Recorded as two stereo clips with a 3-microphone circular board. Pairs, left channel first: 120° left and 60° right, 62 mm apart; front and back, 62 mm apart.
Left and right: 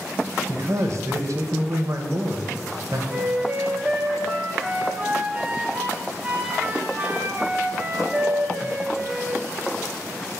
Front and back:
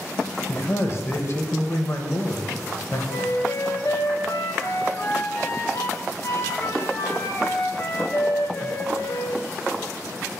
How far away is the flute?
About 0.7 m.